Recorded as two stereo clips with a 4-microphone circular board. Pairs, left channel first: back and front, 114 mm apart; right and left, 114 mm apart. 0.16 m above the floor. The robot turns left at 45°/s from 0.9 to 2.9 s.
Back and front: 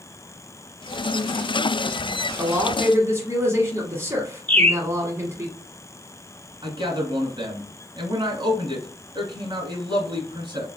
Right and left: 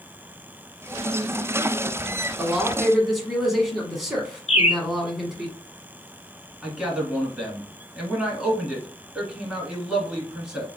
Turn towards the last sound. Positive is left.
turn(degrees=10)